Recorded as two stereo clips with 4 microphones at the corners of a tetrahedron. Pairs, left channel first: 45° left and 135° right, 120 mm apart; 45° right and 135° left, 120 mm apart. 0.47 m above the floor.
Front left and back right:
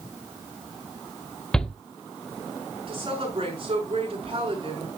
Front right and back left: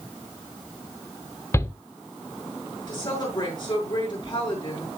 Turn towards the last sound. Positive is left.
turn(degrees=-95)